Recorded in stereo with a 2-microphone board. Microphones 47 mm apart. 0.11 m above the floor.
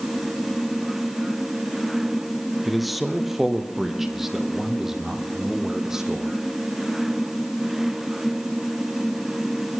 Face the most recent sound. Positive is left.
turn(degrees=-15)  # may be behind; listen again after turning